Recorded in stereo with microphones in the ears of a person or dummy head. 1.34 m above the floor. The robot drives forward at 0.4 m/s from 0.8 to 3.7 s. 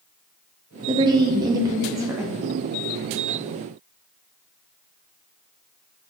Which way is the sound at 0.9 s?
25° right (ahead or behind).